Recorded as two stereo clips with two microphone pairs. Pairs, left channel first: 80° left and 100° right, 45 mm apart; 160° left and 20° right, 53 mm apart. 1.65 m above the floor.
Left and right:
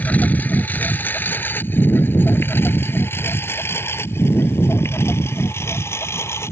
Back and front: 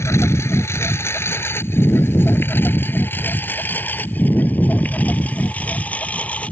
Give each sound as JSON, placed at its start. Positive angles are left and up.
{"t": 0.0, "sound": "a lawn mower", "azimuth_deg": 130}